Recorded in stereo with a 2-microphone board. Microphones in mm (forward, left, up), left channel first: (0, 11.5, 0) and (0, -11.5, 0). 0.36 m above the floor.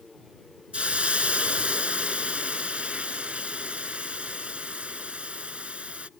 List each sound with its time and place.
0.7 s a hiss: 75° right (ahead or behind)